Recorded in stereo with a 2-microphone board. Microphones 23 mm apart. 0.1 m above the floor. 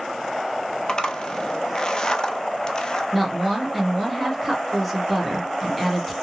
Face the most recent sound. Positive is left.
turn(degrees=0)  # may be behind; listen again after turning